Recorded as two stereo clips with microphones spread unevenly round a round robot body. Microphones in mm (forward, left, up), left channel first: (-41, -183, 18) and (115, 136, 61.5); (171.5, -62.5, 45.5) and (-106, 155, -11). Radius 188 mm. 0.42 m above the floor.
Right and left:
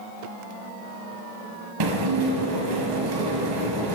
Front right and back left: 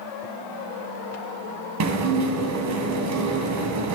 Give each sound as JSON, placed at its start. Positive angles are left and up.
{"t": 1.8, "sound": "dishes clattering", "azimuth_deg": 100, "distance_m": 1.9}